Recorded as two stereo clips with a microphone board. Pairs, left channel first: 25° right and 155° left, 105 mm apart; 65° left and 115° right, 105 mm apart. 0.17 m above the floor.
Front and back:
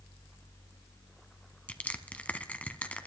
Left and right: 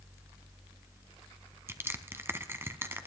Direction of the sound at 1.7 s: 85° right.